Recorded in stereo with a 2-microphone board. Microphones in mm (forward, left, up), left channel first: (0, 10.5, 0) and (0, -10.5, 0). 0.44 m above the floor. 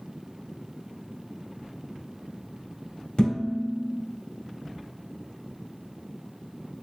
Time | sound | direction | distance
3.2 | dishes clattering | 65° left (ahead or behind) | 1.7 m